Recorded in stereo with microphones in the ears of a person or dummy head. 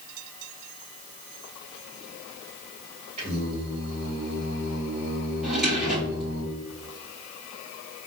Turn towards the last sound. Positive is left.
turn(degrees=0)  # may be behind; listen again after turning